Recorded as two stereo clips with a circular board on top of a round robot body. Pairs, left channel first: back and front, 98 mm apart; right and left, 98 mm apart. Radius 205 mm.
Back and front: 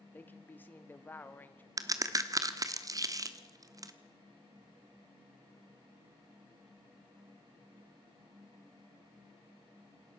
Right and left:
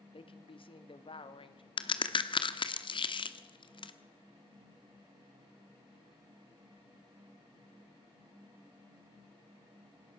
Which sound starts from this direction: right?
A woman speaking, at 0.1 s.